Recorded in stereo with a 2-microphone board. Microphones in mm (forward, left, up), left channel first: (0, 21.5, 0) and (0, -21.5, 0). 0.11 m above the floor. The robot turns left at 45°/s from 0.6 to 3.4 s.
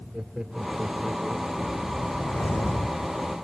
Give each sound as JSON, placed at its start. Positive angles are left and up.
{"t": 0.1, "sound": "laughter", "azimuth_deg": -155}
{"t": 1.6, "sound": "a whoosh", "azimuth_deg": 140}